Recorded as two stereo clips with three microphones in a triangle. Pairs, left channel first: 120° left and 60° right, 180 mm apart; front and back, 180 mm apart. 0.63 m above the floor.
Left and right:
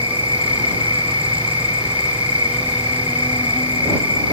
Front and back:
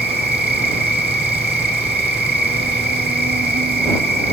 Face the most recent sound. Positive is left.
turn(degrees=175)